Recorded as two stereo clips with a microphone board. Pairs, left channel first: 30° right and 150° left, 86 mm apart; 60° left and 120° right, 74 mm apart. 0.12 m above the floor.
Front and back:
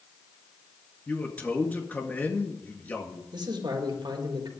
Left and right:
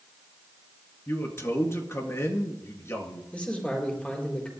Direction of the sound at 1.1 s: 30° left.